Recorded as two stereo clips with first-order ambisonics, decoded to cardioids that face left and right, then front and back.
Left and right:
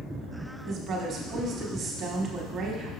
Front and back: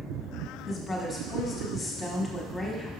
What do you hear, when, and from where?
0.7 s a woman speaking: 60° right, 1.1 m